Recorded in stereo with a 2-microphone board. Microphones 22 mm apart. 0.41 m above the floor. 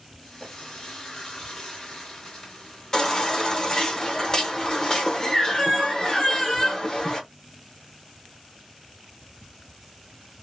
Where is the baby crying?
25° left (ahead or behind), 1.1 m.